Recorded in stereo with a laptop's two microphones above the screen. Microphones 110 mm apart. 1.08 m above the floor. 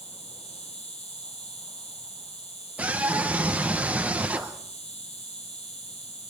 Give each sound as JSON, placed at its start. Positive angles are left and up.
{"t": 0.0, "sound": "an insect", "side_deg": 75, "distance_m": 4.5}
{"t": 2.8, "sound": "a scream", "side_deg": -15, "distance_m": 1.0}